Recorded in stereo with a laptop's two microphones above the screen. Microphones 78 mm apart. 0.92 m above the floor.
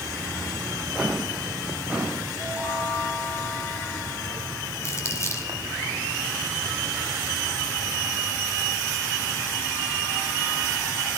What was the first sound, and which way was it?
Footsteps, 15° right (ahead or behind).